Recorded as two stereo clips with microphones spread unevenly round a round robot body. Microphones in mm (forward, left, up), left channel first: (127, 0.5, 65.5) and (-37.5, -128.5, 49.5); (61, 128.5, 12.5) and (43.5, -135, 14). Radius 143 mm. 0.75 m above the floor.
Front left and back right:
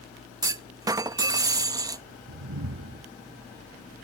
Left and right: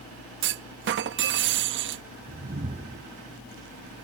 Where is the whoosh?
160° right.